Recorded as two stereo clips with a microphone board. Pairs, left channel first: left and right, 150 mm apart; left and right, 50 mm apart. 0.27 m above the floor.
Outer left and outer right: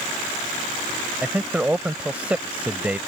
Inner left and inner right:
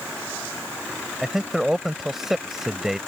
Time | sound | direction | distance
1.2 | a man speaking | 10° right (ahead or behind) | ?